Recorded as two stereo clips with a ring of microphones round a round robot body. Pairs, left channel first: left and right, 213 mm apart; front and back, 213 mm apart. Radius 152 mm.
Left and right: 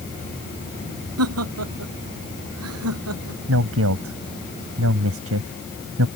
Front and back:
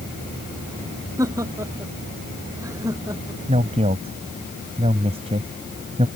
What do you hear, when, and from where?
1.2 s laughter: 100° right
3.5 s a man speaking: 110° right